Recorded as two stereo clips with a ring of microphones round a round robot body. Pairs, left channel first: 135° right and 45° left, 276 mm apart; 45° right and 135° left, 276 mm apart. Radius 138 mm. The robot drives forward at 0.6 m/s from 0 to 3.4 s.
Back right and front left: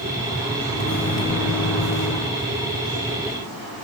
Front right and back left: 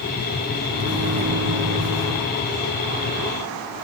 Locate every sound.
0.7 s a microwave: straight behind, 2.5 m